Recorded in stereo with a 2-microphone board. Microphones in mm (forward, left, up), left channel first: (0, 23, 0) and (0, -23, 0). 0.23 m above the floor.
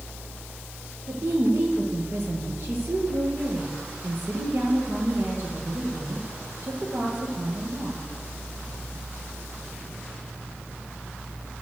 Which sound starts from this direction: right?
A woman speaking, at 1.1 s.